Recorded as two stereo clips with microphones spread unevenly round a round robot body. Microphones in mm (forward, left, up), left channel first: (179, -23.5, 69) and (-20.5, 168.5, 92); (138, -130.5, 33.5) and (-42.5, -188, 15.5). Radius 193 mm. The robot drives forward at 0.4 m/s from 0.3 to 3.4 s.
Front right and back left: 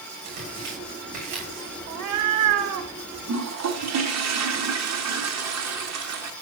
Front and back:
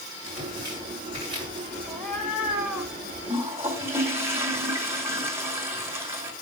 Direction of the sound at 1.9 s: 120° left.